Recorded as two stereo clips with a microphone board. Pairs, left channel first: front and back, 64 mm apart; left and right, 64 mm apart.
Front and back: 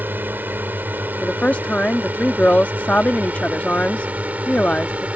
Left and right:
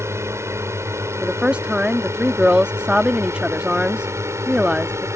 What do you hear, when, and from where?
0.0 s a drone: 125° right; by 5.2 s 115° right
1.2 s a woman speaking: 40° right